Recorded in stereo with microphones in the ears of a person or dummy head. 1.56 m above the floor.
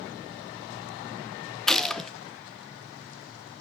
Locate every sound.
1.7 s a gunshot: centre (ahead or behind), 0.9 m